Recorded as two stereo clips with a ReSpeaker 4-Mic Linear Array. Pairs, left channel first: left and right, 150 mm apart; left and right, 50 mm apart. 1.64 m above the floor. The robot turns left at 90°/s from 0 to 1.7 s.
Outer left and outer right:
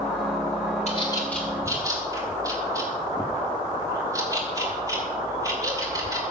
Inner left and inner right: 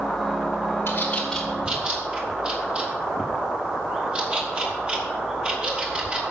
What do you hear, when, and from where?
0.9 s a bird: 50° left (ahead or behind), 3.5 m; by 6.2 s 25° right (ahead or behind), 3.5 m